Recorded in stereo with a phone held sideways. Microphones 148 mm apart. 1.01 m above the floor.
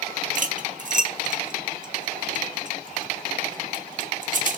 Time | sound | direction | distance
0.3 | cutlery clinking | 55° right (ahead or behind) | 0.9 m